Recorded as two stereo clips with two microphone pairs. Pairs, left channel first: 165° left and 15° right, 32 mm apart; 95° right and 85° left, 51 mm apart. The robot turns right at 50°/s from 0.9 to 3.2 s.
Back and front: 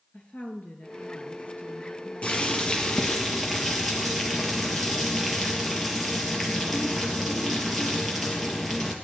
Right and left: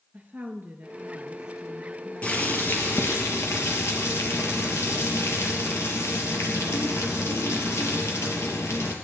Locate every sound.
0.1 s a woman speaking: 130° left, 2 m; by 3.2 s 115° right, 2 m
2.2 s boiling: 155° right, 3 m; by 8.9 s 105° right, 3 m